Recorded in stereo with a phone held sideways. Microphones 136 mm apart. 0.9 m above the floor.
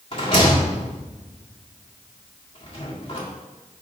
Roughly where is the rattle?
Left.